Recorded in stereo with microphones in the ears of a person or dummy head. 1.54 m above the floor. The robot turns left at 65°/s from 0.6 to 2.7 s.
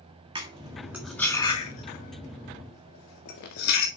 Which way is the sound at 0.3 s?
25° right (ahead or behind).